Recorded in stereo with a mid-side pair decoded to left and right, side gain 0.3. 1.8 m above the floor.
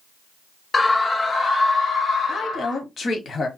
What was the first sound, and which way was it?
A scream, 45° left.